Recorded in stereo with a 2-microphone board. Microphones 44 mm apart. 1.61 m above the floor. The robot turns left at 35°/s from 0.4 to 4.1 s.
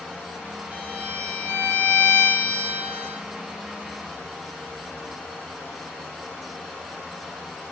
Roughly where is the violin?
Ahead right.